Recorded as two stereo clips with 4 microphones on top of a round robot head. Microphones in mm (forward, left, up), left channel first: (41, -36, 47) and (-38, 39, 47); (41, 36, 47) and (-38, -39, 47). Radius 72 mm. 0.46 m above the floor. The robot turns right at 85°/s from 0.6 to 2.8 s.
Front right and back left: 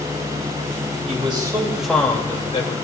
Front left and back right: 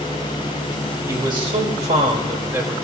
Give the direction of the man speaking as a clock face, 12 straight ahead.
7 o'clock.